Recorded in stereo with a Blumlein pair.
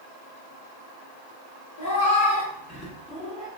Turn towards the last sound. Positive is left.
turn(degrees=10)